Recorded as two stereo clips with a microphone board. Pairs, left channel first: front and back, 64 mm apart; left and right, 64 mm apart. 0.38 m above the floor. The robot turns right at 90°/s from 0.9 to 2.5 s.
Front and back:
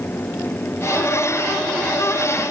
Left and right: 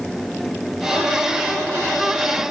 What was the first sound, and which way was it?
Only background noise.